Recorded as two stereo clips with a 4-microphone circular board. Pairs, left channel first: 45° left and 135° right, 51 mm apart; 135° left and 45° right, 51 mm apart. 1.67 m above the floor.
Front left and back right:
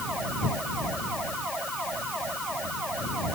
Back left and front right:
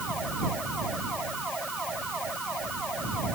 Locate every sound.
Only background noise.